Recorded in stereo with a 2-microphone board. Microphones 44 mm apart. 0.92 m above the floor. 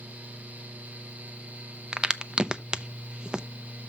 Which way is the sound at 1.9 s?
20° right (ahead or behind).